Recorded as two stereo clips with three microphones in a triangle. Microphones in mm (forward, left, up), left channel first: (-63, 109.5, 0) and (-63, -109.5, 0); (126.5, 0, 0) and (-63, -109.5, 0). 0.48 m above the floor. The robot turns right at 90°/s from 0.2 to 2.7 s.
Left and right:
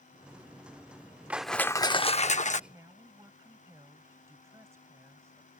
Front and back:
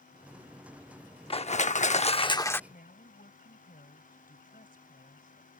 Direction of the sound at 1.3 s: 15° right.